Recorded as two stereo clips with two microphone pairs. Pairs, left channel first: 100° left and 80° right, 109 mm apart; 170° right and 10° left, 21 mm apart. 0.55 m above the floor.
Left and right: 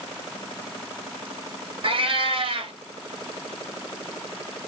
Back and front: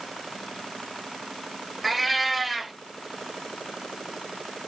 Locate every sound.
1.8 s a cat meowing: 95° right, 0.8 m